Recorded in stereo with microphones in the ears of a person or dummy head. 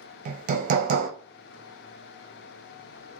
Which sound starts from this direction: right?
Hammering, at 0.2 s.